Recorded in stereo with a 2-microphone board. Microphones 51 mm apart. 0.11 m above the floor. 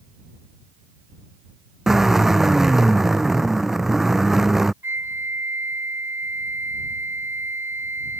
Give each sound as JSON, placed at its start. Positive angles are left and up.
{"t": 1.9, "sound": "a drill", "side_deg": -5}
{"t": 4.8, "sound": "a flute", "side_deg": -50}